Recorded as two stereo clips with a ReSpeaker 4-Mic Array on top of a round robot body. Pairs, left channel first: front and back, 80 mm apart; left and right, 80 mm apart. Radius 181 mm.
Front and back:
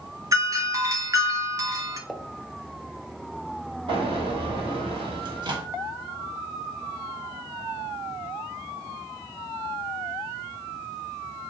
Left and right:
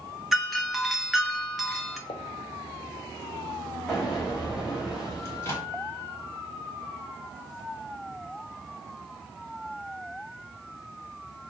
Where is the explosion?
175° right, 1.8 m.